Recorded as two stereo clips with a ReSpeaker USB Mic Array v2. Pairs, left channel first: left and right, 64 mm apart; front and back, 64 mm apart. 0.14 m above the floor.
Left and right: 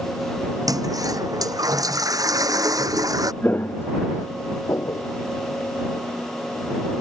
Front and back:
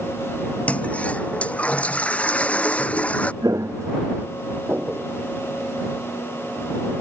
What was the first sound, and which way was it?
A toilet flushing, 70° right.